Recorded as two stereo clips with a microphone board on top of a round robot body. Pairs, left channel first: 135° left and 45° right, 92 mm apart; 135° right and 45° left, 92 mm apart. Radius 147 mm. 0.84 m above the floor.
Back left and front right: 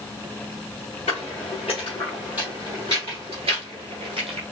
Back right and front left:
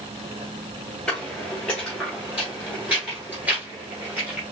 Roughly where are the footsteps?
Behind left.